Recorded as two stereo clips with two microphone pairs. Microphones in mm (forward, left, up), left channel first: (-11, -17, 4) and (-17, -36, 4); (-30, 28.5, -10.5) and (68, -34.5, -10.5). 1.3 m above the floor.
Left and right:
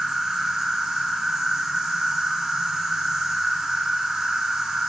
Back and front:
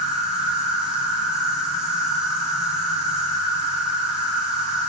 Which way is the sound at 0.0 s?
115° right.